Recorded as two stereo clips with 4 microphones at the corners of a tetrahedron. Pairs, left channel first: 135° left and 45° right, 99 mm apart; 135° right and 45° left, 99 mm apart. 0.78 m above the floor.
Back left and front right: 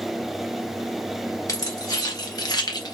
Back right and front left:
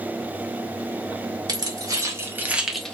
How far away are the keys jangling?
About 1.1 m.